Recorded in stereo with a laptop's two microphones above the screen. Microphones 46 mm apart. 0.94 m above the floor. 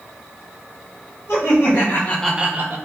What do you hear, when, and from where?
1.3 s laughter: 70° left (ahead or behind), 1.5 m; by 2.8 s 55° right (ahead or behind), 0.8 m